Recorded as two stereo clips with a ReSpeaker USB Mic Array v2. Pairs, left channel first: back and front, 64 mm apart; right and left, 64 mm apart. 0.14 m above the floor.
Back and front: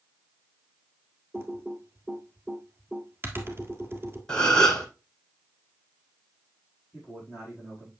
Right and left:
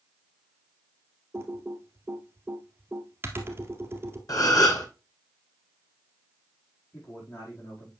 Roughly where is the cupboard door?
I don't hear a cupboard door.